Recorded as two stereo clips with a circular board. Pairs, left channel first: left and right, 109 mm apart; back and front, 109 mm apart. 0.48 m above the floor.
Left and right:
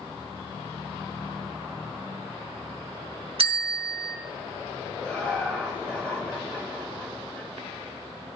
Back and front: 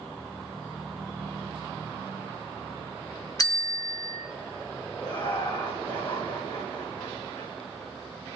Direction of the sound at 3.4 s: 125° right.